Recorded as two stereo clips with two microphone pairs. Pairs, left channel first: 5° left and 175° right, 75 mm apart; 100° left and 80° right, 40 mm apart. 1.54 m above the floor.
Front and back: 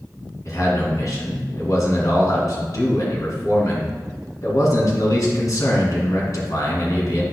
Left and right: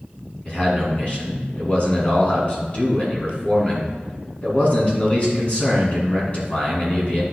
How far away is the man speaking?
About 2.5 m.